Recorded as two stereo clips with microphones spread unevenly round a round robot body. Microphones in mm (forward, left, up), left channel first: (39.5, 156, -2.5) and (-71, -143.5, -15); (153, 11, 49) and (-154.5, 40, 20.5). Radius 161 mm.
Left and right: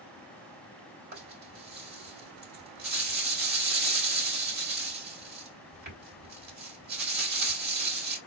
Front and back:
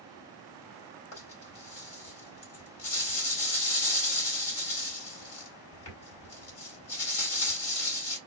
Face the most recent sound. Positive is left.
turn(degrees=-50)